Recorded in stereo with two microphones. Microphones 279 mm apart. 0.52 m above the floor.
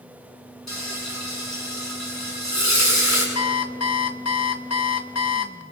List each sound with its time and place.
0.7 s frying: 75° left (ahead or behind), 7 m
3.4 s an alarm clock: 65° left (ahead or behind), 1.0 m